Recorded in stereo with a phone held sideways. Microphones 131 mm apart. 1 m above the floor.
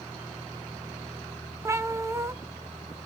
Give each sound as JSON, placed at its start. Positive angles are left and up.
{"t": 1.6, "sound": "a cat meowing", "side_deg": -20, "distance_m": 0.5}